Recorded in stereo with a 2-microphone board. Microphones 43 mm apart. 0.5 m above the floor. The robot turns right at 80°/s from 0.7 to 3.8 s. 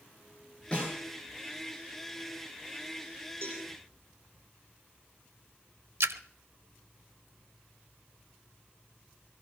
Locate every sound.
0.7 s a snare drum: 25° left (ahead or behind), 9.5 m; by 0.9 s 45° left (ahead or behind), 9.5 m
3.4 s a cowbell: 75° right (ahead or behind), 5.5 m; by 3.6 s 85° right, 5.5 m
6.0 s a splash: 80° right, 0.6 m